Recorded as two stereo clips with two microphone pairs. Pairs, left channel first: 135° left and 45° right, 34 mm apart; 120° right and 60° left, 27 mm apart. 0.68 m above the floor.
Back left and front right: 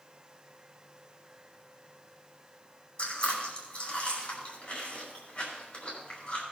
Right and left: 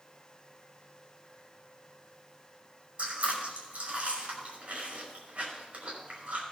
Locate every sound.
3.0 s chewing: 90° left, 5.5 m